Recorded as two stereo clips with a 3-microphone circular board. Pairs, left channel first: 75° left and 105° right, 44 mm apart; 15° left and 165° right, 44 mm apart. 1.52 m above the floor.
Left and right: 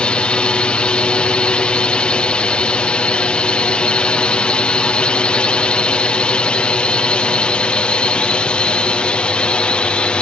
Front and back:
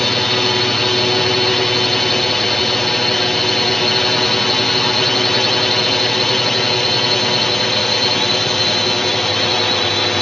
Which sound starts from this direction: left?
A drone, at 0.0 s.